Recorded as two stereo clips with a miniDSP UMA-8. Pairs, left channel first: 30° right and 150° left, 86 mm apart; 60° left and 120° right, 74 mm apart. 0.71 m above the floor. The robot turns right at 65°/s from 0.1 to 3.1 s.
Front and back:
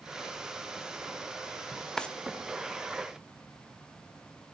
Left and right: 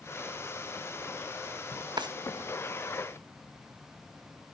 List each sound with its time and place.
2.0 s a drawer: 115° right, 0.6 m; by 2.1 s 105° right, 0.6 m